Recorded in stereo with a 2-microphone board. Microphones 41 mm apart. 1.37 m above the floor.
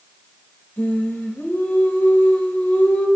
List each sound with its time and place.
0.8 s singing: 55° left (ahead or behind), 2.5 m